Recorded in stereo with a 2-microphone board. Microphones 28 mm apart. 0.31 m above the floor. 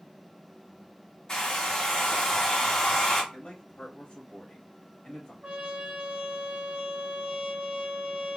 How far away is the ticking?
No ticking in this recording.